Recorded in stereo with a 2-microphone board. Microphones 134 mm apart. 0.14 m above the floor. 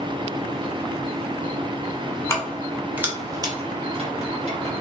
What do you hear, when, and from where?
2.3 s keys jangling: 20° left (ahead or behind), 0.8 m; by 4.7 s 55° right (ahead or behind), 1.5 m